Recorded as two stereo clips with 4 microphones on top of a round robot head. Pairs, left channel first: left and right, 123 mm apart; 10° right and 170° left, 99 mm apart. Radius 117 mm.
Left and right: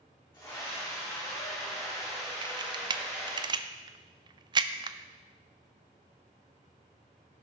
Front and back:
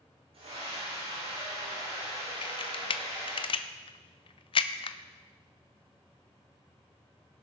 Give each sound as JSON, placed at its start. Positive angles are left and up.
{"t": 0.3, "sound": "a scream", "azimuth_deg": 160, "distance_m": 5.5}
{"t": 2.4, "sound": "a camera shutter", "azimuth_deg": -40, "distance_m": 0.6}